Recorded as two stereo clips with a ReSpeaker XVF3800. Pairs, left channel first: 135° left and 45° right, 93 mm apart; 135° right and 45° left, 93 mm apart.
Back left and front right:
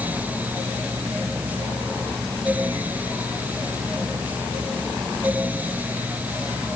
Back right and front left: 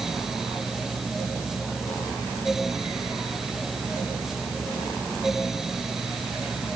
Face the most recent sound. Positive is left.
No sound to turn to.